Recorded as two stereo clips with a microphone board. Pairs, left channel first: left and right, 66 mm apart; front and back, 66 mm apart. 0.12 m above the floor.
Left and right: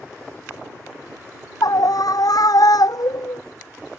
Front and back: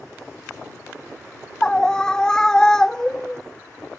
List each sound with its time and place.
1.6 s a scream: 80° left